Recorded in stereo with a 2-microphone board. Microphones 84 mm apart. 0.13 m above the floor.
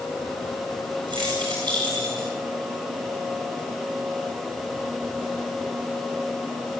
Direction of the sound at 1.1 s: 65° right (ahead or behind).